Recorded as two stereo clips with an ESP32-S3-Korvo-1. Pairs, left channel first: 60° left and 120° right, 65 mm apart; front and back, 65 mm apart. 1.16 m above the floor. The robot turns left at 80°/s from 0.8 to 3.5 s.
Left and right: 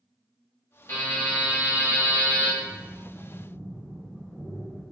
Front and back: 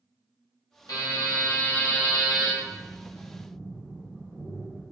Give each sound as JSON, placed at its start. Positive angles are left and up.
{"t": 0.9, "sound": "a buzzer", "azimuth_deg": 15, "distance_m": 1.4}
{"t": 2.6, "sound": "breathing", "azimuth_deg": -145, "distance_m": 1.2}